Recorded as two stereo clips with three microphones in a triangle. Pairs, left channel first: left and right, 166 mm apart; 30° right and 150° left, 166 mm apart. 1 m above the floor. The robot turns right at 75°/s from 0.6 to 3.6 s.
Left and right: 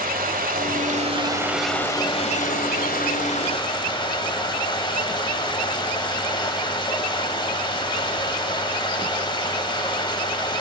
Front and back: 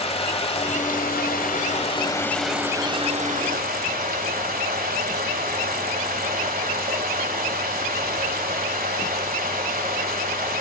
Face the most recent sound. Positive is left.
turn(degrees=145)